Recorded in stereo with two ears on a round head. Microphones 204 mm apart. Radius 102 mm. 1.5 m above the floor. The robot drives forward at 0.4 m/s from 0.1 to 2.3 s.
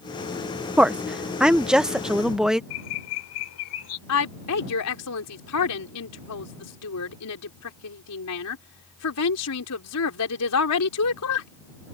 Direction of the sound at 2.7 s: 75° left (ahead or behind).